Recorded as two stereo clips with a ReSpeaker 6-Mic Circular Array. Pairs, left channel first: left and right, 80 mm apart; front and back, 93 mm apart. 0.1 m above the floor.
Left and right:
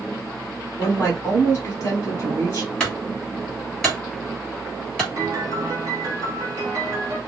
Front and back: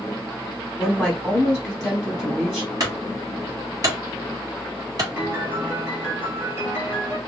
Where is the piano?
125° right, 1.7 m.